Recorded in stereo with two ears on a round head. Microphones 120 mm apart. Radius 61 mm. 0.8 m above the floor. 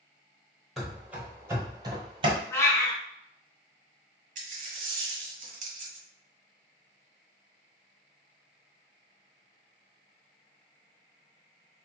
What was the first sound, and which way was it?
Running footsteps, centre (ahead or behind).